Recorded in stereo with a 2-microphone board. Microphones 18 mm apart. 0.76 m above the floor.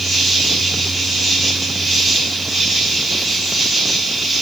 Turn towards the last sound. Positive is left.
turn(degrees=0)  # may be behind; listen again after turning